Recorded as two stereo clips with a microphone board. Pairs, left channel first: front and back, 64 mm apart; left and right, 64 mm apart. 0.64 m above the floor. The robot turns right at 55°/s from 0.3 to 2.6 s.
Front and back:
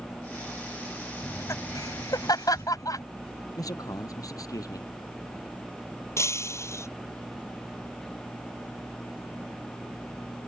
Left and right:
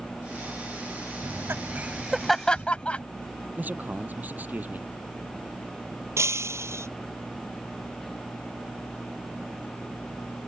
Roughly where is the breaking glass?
Ahead right.